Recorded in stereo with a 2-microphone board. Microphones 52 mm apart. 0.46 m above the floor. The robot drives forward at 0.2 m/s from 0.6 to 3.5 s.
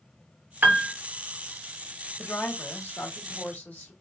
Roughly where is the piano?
Right.